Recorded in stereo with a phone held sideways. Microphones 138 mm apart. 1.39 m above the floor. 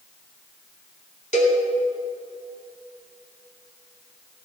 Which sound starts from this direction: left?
A cowbell, at 1.3 s.